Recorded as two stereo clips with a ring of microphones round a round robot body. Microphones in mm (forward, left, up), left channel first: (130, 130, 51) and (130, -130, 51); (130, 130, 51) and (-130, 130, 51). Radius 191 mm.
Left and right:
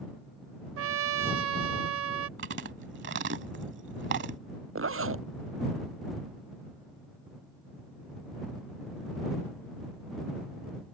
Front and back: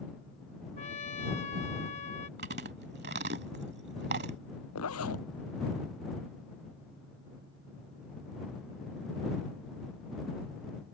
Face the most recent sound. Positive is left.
turn(degrees=-55)